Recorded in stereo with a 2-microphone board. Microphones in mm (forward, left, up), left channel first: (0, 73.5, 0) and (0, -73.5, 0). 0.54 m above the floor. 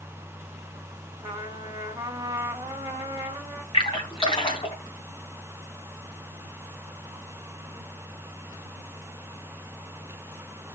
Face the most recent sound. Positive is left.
turn(degrees=40)  # may be behind; listen again after turning